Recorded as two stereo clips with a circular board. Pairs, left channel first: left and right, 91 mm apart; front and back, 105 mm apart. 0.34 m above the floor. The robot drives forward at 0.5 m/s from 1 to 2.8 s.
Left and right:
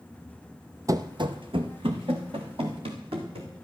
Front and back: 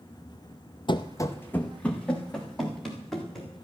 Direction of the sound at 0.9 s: 40° right.